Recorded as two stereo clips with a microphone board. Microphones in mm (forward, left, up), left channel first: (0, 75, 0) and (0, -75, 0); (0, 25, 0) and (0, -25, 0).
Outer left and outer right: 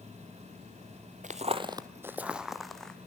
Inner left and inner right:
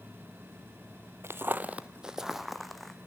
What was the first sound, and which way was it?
Footsteps, 55° right (ahead or behind).